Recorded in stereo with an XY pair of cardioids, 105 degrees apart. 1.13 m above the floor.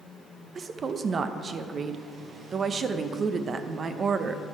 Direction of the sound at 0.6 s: 45° right.